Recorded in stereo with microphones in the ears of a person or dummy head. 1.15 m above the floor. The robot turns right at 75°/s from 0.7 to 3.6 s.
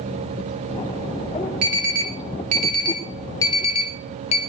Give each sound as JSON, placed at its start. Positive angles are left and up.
{"t": 1.6, "sound": "an alarm", "side_deg": -55, "distance_m": 1.3}